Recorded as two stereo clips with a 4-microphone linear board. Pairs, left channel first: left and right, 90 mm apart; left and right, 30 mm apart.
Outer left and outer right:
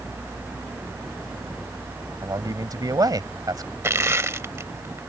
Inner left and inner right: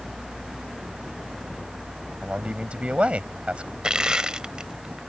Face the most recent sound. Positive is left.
turn(degrees=-30)  # may be behind; listen again after turning